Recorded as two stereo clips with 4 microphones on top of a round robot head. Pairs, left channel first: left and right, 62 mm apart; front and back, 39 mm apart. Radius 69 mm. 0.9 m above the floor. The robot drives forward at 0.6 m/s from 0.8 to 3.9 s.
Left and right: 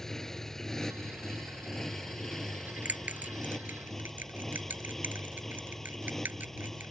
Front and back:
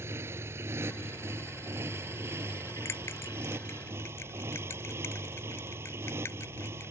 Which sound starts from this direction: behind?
A motorcycle, at 0.0 s.